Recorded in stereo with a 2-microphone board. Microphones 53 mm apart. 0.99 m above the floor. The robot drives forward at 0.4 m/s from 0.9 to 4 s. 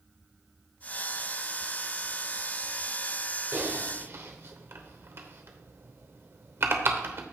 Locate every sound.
3.5 s typing on a keyboard: 40° right (ahead or behind), 1.1 m; by 7.2 s 45° right (ahead or behind), 1.0 m